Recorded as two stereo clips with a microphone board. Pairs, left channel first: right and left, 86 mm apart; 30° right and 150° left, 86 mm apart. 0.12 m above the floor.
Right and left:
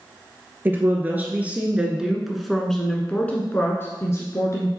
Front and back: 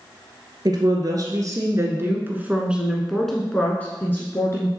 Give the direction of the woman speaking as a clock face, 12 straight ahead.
7 o'clock.